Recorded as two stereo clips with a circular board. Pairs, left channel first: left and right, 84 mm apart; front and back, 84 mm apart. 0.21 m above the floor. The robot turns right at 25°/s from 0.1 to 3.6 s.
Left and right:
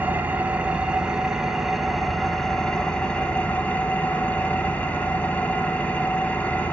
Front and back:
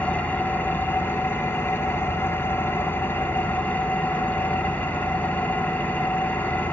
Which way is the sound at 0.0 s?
50° right.